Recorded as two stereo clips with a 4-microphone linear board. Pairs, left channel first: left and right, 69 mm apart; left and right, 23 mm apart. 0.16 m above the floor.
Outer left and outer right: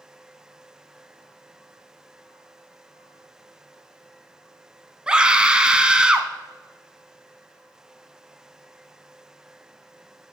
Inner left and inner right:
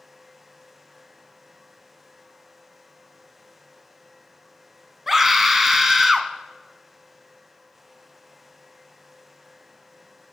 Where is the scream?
15° right (ahead or behind), 1.1 m.